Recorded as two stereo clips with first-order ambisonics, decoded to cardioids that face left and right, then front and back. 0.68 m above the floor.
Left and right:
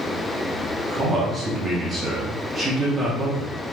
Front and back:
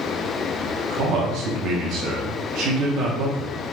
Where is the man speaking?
160° right, 0.9 m.